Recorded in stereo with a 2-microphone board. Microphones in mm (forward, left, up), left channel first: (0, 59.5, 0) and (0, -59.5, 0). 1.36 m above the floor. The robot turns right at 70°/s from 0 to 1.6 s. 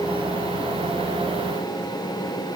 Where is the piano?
I don't hear a piano.